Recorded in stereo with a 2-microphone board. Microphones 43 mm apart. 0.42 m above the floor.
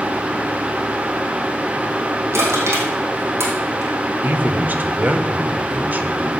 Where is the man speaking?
40° right (ahead or behind), 1.0 m.